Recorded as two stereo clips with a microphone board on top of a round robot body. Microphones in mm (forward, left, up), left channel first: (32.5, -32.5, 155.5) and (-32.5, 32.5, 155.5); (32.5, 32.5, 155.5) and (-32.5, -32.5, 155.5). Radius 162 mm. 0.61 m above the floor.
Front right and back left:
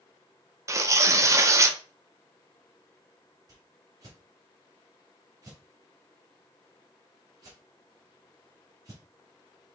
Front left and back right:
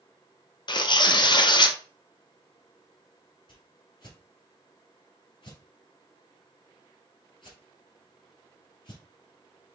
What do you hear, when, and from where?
0.7 s tearing paper: 80° left, 0.7 m
3.5 s a whoosh: 80° left, 1.7 m